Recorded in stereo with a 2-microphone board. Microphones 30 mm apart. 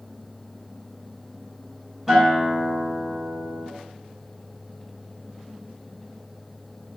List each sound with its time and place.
2.1 s a guitar: 10° right (ahead or behind), 1.2 m